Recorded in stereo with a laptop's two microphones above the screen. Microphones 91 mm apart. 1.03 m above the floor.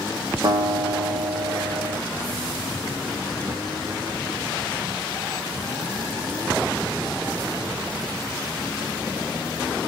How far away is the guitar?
About 0.9 m.